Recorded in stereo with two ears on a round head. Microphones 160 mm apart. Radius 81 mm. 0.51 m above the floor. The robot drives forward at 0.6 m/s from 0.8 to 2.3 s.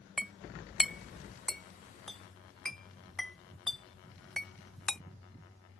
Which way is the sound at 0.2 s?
Centre (ahead or behind).